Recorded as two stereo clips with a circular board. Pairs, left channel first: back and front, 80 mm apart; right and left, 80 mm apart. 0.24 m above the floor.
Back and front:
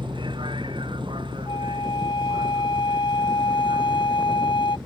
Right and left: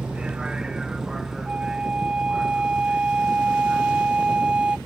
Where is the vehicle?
10° left; by 4.9 s straight ahead.